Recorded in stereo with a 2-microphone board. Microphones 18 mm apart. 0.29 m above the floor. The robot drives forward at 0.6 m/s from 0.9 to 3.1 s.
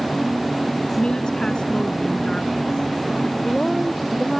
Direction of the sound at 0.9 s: 55° left (ahead or behind).